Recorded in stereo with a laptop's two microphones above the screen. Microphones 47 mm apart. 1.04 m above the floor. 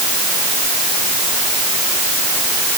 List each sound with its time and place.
Only background noise.